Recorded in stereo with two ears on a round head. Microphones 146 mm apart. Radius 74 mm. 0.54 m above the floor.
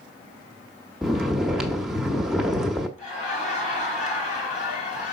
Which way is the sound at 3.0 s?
45° left (ahead or behind).